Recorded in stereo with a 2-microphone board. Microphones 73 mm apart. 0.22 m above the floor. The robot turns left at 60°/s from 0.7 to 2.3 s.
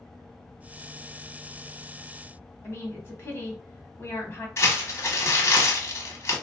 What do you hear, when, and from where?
2.6 s a woman speaking: 30° left (ahead or behind), 1.3 m
4.6 s crumpling: 35° left (ahead or behind), 1.0 m